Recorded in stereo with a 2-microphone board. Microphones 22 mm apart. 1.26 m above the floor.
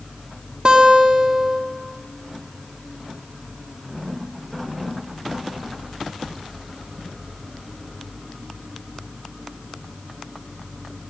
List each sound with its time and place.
0.7 s a guitar: 45° right (ahead or behind), 1.8 m